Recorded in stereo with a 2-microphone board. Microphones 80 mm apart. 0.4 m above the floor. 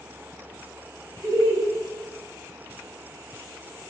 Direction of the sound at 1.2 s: 40° right (ahead or behind).